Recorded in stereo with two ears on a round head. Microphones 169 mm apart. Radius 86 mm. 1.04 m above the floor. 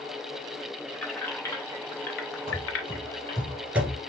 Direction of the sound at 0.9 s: 5° left (ahead or behind).